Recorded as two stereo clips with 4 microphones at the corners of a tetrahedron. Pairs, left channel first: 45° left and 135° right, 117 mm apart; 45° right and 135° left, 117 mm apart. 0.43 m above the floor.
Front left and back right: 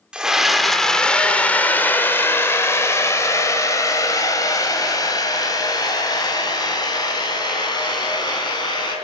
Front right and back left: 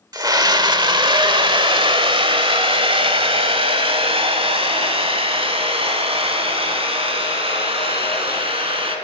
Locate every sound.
0.1 s a scream: 150° left, 1.3 m; by 8.9 s 95° left, 5 m